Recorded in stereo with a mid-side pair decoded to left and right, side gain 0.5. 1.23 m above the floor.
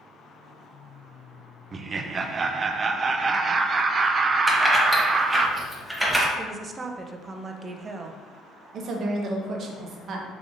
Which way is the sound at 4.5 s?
Straight ahead.